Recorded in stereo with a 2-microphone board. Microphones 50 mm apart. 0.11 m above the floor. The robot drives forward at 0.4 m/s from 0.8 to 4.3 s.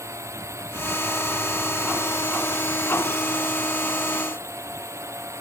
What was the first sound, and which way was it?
A drone, 75° right (ahead or behind).